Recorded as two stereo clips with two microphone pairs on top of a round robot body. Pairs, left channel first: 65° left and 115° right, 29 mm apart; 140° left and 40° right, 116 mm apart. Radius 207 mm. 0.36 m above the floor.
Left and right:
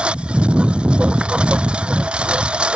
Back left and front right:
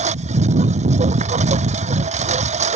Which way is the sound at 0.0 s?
65° right.